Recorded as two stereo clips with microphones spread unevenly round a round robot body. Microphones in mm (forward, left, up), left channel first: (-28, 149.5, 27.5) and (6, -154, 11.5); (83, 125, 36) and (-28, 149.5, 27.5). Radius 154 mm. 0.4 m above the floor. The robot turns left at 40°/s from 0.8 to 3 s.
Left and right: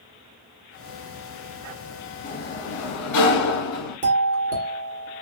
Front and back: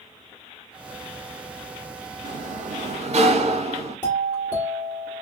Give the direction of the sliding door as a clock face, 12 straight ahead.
7 o'clock.